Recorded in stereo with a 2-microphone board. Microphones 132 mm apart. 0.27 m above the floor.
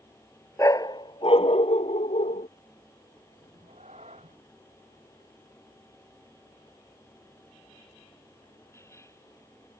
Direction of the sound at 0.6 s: 25° left (ahead or behind).